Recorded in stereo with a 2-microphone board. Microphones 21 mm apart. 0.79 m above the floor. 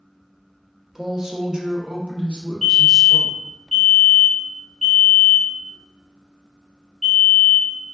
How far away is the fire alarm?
About 1.9 m.